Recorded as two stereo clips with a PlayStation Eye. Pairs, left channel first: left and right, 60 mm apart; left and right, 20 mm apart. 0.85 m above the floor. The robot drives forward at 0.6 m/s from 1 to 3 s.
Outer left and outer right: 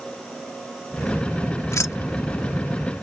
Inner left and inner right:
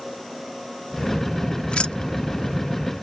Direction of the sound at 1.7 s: 60° left (ahead or behind).